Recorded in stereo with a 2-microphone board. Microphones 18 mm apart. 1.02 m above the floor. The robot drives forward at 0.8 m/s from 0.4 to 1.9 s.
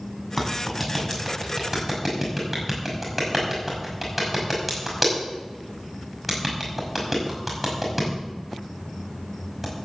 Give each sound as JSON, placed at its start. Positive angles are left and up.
{"t": 0.4, "sound": "a clap", "side_deg": -5, "distance_m": 7.0}